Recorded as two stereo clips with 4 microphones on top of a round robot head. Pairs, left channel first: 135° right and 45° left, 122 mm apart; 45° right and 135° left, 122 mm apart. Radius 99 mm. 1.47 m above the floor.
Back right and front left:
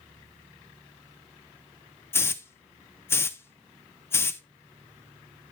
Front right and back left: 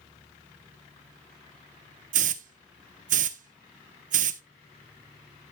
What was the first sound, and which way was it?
A hiss, 155° left.